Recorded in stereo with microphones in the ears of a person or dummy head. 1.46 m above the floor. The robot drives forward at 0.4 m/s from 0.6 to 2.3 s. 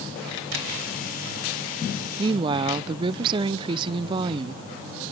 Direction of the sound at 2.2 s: 25° right (ahead or behind).